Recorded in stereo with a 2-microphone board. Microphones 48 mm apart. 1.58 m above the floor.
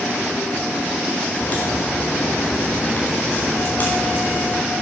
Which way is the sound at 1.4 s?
35° left (ahead or behind).